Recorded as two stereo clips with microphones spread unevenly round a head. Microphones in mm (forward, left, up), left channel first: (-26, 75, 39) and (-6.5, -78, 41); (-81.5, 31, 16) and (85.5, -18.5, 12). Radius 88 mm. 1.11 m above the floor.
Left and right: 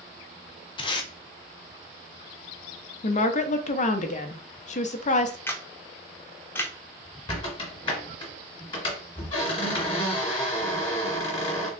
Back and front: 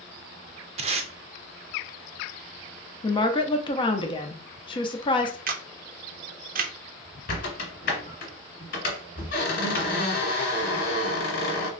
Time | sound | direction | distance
0.8 | tape being pulled | 35° left | 0.6 m
3.0 | a woman speaking | 110° left | 0.6 m
5.5 | a camera shutter | 20° left | 0.6 m
7.3 | a squeak | 150° left | 1.4 m